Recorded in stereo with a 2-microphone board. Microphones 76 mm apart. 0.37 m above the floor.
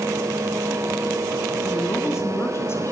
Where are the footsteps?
I don't hear footsteps.